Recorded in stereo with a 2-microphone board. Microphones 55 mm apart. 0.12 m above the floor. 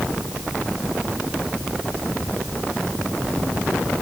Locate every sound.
Only background noise.